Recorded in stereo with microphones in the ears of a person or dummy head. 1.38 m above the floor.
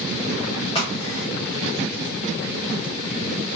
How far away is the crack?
About 1.6 m.